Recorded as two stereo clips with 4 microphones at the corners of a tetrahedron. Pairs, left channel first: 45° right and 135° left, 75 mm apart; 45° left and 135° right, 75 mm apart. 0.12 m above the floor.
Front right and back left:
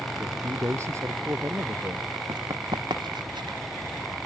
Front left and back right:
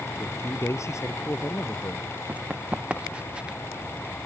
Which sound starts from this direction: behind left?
Running footsteps, at 2.3 s.